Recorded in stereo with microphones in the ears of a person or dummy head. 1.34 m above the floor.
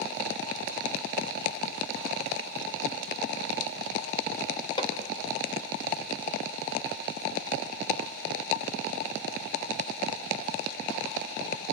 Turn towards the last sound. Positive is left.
turn(degrees=25)  # may be behind; listen again after turning